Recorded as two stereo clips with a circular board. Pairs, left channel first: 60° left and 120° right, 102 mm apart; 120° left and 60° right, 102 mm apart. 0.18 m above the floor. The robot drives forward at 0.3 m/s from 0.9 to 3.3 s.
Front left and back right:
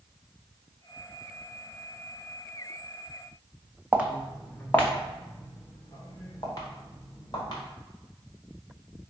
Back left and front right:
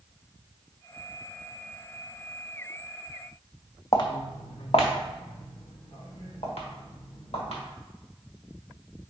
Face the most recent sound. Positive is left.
turn(degrees=110)